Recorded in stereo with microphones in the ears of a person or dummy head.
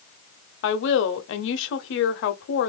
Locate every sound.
0.6 s a woman speaking: 60° left (ahead or behind), 0.9 m